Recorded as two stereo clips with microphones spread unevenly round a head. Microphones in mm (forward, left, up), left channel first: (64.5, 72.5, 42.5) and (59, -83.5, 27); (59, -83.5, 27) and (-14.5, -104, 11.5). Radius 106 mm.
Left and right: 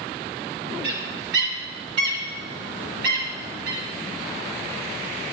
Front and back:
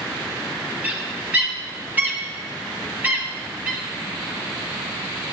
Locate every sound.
0.8 s a bird: 95° right, 3.5 m